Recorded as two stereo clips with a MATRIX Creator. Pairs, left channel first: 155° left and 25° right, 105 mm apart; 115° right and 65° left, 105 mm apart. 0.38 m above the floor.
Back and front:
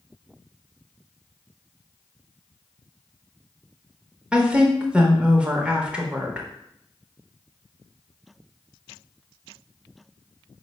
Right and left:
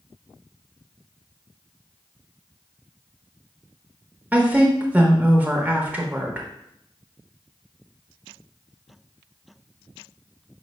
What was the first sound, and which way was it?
A woman speaking, 30° left.